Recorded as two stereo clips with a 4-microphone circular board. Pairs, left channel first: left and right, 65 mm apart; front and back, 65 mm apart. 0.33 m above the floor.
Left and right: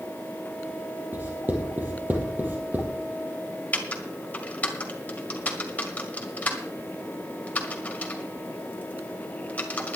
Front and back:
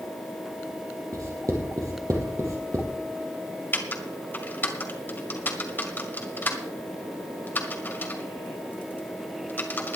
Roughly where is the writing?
Behind right.